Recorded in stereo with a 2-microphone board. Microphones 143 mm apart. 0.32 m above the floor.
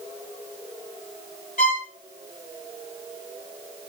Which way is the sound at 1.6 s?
70° left (ahead or behind).